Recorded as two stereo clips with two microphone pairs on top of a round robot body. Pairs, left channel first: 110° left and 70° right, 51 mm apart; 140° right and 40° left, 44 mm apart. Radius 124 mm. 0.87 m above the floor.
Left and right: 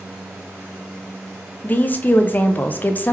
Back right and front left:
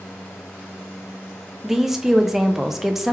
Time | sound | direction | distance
1.6 | a woman speaking | 150° left | 0.6 m